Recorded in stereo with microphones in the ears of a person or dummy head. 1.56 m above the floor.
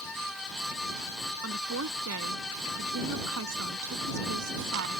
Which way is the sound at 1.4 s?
80° right.